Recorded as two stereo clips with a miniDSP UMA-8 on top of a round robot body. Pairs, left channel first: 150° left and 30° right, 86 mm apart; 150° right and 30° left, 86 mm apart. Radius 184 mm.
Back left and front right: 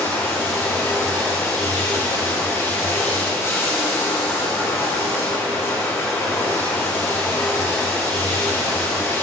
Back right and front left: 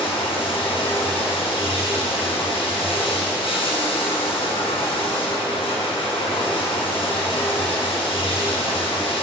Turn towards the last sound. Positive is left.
turn(degrees=-150)